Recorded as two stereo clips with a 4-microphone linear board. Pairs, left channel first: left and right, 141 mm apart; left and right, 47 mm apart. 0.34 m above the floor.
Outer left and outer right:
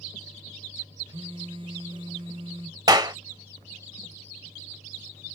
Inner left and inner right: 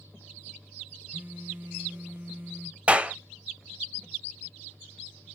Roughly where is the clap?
Right.